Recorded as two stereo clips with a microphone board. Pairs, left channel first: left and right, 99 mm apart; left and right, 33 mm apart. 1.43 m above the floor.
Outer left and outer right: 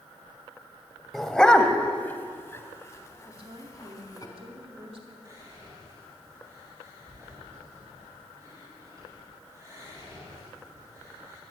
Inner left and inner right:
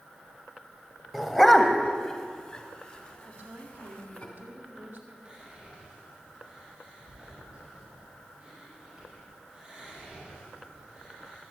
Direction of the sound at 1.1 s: Centre (ahead or behind).